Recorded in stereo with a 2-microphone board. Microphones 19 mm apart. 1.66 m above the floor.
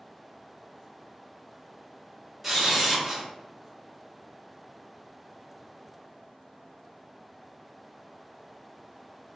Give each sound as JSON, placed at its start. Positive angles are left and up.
{"t": 2.4, "sound": "a camera shutter", "side_deg": -5, "distance_m": 1.3}